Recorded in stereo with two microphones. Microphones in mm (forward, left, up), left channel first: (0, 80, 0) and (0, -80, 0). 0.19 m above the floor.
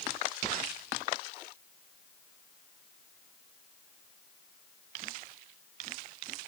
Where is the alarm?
I don't hear an alarm.